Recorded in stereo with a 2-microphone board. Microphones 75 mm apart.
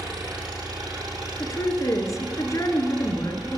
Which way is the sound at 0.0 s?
70° right (ahead or behind).